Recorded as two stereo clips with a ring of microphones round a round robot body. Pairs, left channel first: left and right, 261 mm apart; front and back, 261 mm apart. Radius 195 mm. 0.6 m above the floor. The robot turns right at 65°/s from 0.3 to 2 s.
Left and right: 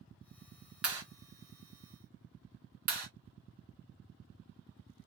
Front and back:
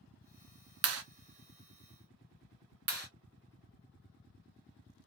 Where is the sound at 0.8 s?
175° right, 0.6 m; by 1.0 s 165° right, 0.6 m.